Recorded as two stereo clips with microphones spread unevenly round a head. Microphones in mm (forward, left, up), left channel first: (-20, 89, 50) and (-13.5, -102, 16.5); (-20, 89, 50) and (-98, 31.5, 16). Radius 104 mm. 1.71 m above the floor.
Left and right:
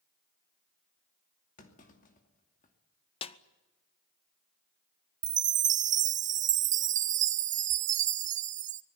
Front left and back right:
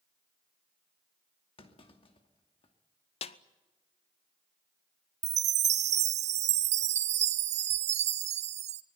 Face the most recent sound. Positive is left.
turn(degrees=-140)